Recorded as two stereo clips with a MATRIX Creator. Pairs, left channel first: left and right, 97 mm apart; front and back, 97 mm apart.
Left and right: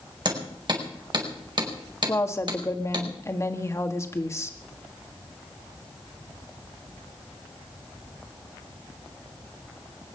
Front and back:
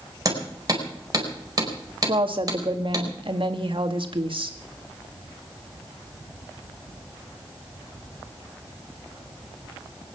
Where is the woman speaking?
150° left, 1.8 m.